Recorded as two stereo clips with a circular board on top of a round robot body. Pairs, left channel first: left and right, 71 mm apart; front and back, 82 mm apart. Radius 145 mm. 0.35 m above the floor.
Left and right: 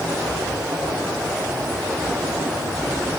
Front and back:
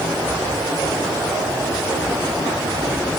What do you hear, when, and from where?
Only background noise.